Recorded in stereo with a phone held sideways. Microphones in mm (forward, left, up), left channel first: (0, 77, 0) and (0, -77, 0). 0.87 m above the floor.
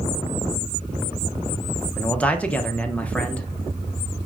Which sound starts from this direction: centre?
A man speaking, at 2.0 s.